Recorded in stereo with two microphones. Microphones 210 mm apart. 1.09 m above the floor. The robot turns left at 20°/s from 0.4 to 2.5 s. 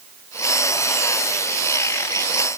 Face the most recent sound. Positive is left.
No sound to turn to.